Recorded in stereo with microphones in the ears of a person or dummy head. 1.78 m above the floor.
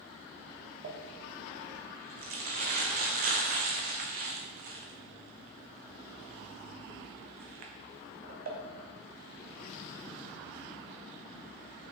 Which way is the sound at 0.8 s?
45° right (ahead or behind).